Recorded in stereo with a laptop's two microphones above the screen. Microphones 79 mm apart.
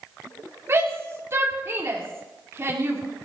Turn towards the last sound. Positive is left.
turn(degrees=-35)  # may be behind; listen again after turning